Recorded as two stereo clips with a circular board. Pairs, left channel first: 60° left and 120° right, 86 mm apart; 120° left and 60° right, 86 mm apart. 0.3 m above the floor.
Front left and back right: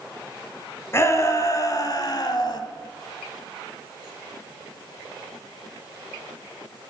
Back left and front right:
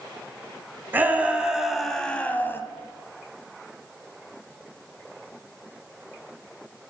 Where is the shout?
5° left, 1.8 m; by 2.6 s 65° left, 1.6 m.